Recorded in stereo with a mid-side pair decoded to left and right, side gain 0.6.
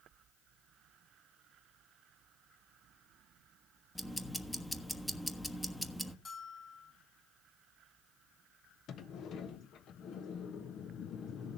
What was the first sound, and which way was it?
Ticking, 5° left.